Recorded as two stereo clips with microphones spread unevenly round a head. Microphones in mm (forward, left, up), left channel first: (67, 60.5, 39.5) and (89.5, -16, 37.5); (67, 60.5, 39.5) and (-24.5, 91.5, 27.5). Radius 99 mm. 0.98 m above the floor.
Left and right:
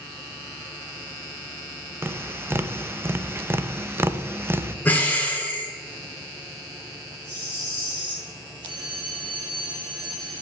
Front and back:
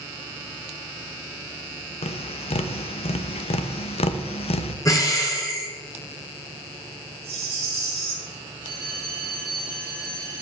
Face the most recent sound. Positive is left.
turn(degrees=-120)